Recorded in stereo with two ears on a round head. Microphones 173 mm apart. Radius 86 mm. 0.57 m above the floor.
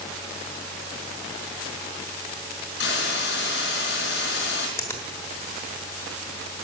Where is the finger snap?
15° left (ahead or behind), 1.4 m.